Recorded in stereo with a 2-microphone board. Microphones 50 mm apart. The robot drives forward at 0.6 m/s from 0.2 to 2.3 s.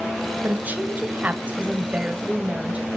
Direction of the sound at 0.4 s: 40° right (ahead or behind).